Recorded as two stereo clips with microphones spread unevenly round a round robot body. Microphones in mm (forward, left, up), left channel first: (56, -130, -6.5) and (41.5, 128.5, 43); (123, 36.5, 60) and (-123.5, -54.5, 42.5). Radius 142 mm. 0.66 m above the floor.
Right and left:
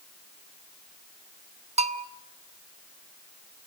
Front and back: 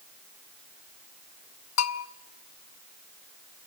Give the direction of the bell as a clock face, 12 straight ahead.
11 o'clock.